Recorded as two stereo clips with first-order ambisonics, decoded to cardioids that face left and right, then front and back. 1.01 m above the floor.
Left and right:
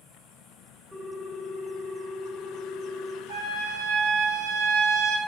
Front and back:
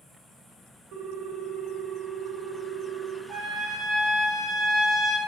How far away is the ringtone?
About 1.4 m.